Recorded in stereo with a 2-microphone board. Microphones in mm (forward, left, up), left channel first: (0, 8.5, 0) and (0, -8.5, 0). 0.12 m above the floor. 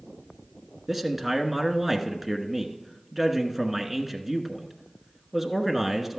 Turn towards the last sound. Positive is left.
turn(degrees=-5)  # may be behind; listen again after turning